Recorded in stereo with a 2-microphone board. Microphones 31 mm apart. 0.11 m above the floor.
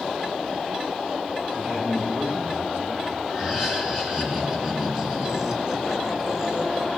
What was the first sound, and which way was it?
A man speaking, 80° right.